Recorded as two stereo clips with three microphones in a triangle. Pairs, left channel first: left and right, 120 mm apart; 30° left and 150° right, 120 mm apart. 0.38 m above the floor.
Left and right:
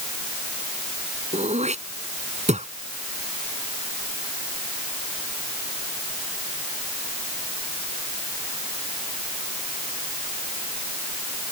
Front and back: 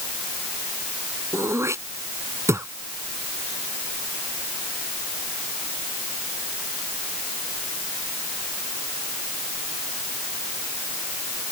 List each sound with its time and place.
1.3 s throat clearing: 85° right